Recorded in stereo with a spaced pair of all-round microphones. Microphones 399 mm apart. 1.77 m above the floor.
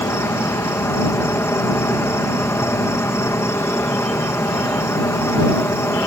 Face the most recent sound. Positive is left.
turn(degrees=5)  # may be behind; listen again after turning